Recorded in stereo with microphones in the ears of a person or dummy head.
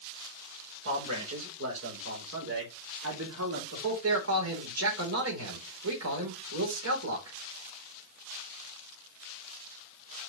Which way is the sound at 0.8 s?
75° right (ahead or behind).